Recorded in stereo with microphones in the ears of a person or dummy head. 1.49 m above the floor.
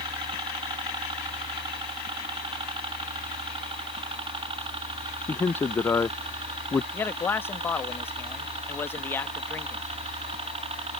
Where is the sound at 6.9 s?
10° left (ahead or behind).